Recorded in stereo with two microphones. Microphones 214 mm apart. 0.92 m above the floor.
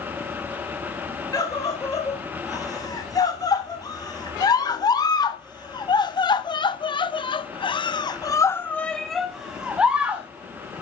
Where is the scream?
15° left (ahead or behind), 3.5 m; by 10.3 s 5° right (ahead or behind), 1.1 m.